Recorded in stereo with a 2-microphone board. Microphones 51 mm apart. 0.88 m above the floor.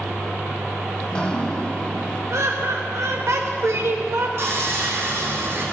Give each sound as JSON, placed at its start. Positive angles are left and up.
{"t": 1.0, "sound": "dripping", "side_deg": 20, "distance_m": 1.0}
{"t": 2.3, "sound": "laughter", "side_deg": -65, "distance_m": 0.8}
{"t": 4.4, "sound": "sawing", "side_deg": -65, "distance_m": 4.0}